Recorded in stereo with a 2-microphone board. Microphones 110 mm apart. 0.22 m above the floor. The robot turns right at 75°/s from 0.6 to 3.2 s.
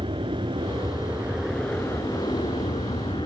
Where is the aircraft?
55° right (ahead or behind); by 3.3 s 50° left (ahead or behind).